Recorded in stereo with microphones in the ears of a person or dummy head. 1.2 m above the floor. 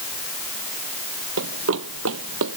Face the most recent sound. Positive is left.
turn(degrees=-65)  # may be behind; listen again after turning